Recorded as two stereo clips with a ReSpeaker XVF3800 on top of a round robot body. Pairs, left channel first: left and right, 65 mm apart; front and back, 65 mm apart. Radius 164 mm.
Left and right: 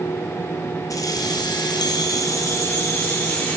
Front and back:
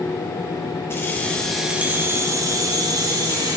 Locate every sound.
0.9 s keys jangling: 55° left, 1.4 m; by 3.6 s 160° left, 2.5 m